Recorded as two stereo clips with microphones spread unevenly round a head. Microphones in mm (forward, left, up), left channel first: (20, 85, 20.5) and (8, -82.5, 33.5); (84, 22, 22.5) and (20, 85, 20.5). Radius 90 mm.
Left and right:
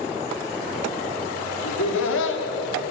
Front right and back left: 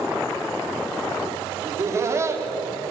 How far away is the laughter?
About 4 m.